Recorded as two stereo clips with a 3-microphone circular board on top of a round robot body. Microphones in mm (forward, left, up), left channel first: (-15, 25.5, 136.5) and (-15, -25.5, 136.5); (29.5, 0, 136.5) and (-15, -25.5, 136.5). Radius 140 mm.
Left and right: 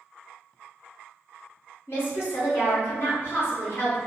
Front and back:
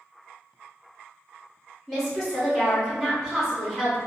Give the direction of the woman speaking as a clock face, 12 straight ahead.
8 o'clock.